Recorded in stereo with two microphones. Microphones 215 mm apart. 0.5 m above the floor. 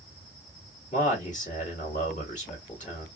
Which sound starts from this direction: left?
A man speaking, at 0.9 s.